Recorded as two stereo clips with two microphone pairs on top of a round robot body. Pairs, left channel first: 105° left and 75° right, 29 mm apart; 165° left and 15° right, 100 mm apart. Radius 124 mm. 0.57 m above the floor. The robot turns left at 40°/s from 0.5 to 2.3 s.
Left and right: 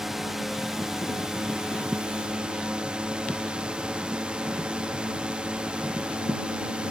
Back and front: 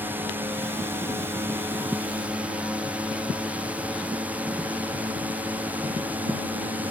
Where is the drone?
5° left; by 6.9 s 65° right.